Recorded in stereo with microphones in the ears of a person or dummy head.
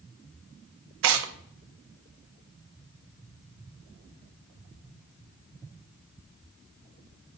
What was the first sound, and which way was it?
Tearing paper, 70° right (ahead or behind).